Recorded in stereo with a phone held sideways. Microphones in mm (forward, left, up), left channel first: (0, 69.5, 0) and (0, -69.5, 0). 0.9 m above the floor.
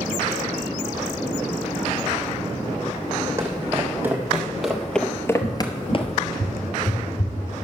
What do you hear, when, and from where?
3.4 s footsteps: 20° right (ahead or behind), 2.5 m; by 6.2 s 50° left (ahead or behind), 1.2 m
5.4 s a cupboard door: 70° left (ahead or behind), 4.5 m